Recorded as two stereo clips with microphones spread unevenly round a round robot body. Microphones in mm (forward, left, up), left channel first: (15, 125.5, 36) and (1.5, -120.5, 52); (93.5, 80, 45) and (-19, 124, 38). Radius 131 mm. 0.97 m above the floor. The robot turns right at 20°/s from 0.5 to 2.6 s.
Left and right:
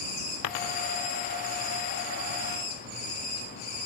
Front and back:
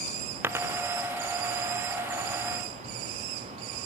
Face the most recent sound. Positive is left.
turn(degrees=130)